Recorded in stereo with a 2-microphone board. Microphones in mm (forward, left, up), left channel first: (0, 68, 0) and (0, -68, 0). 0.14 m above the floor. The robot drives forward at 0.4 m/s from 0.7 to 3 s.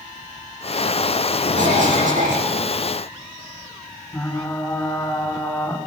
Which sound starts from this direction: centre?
Frying, at 4.1 s.